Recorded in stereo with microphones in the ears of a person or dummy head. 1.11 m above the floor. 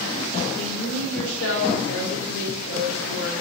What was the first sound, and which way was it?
A woman speaking, 80° left.